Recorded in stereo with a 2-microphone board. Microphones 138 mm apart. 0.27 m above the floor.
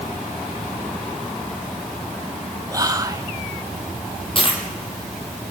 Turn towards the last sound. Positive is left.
turn(degrees=40)  # may be behind; listen again after turning